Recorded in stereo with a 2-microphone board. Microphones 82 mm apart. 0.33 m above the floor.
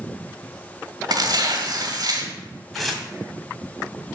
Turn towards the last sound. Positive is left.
turn(degrees=0)  # may be behind; listen again after turning